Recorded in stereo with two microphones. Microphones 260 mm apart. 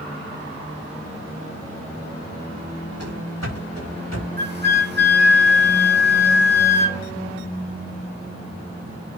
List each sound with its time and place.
3.0 s running footsteps: 70° left (ahead or behind), 6 m; by 4.3 s 80° left, 7.5 m
4.4 s a flute: 40° right (ahead or behind), 1.3 m